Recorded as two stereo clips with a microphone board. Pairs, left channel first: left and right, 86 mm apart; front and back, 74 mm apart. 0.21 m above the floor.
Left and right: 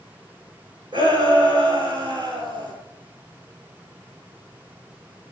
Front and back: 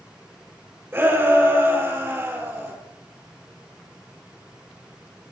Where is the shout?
120° right, 6.5 m.